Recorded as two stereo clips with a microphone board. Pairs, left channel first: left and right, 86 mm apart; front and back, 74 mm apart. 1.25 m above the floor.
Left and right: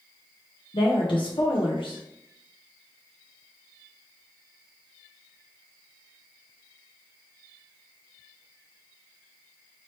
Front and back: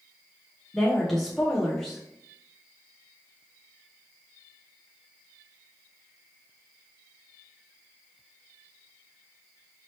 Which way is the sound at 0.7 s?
85° left.